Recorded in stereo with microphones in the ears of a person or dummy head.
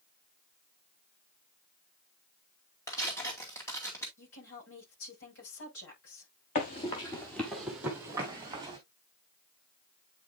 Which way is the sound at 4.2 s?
75° left (ahead or behind).